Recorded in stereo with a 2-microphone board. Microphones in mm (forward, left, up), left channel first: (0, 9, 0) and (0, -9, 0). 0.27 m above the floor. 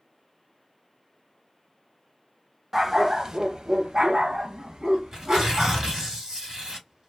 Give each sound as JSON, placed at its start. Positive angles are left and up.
{"t": 2.7, "sound": "a dog barking", "side_deg": -10, "distance_m": 0.6}
{"t": 5.1, "sound": "tearing paper", "side_deg": -40, "distance_m": 1.8}